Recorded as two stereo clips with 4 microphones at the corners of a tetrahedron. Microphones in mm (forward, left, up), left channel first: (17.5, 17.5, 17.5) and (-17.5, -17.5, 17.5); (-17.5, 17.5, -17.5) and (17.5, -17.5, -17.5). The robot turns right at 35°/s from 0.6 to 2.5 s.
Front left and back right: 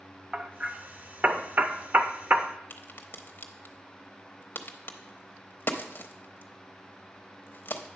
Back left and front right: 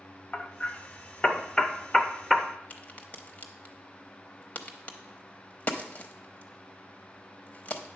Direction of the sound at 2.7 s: 85° left.